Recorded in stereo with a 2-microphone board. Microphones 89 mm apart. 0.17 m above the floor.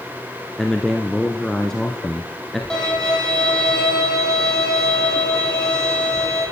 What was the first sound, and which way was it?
A man speaking, 5° left (ahead or behind).